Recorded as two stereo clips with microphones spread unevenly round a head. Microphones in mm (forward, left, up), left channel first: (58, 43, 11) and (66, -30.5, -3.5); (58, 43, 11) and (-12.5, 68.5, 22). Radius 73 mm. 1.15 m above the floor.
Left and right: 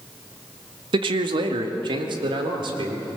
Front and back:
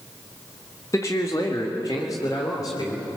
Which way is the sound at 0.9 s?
90° right.